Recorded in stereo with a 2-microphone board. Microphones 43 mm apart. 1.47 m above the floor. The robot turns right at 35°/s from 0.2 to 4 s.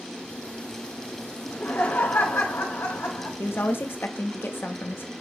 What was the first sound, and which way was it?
Laughter, 55° left.